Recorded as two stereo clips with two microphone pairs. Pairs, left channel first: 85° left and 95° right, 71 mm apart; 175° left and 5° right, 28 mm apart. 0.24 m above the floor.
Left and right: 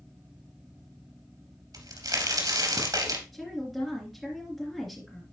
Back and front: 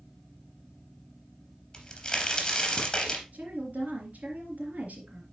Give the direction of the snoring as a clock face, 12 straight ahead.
I don't hear snoring.